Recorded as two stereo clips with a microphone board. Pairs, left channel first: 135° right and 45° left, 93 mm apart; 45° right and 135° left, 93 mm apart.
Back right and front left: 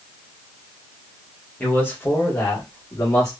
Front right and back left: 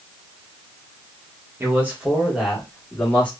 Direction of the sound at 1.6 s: 170° left.